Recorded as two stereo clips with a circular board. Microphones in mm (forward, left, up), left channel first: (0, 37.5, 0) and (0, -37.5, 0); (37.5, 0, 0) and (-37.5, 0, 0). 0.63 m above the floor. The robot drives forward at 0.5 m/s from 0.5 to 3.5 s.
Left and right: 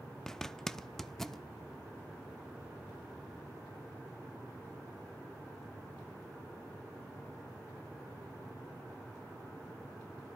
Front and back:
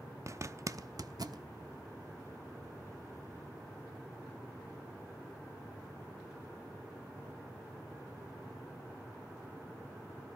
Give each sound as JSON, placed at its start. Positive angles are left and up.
{"t": 0.3, "sound": "a zipper", "azimuth_deg": 170, "distance_m": 0.7}